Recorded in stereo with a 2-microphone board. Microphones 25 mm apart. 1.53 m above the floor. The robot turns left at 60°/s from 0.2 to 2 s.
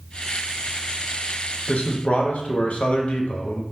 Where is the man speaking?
65° left (ahead or behind), 0.6 m; by 3.6 s 70° left (ahead or behind), 0.6 m.